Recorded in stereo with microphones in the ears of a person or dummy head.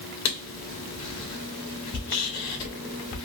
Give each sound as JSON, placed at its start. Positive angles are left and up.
{"t": 0.2, "sound": "writing", "side_deg": 70, "distance_m": 2.5}